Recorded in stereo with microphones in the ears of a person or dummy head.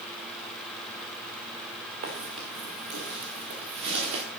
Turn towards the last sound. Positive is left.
turn(degrees=-70)  # may be behind; listen again after turning